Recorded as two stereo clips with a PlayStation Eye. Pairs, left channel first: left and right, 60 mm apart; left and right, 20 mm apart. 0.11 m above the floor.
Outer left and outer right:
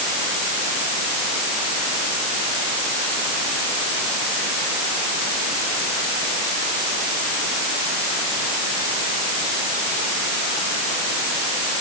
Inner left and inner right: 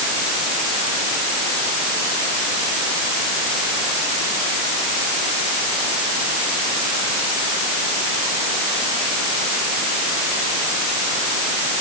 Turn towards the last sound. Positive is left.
No sound to turn to.